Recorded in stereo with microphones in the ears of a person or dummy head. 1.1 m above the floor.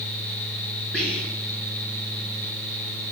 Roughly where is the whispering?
Centre.